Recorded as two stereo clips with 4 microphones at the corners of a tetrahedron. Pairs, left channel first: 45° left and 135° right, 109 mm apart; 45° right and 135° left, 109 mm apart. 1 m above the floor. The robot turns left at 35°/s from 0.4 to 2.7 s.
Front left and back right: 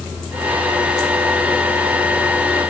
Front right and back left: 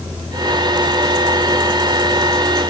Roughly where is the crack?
No crack in this recording.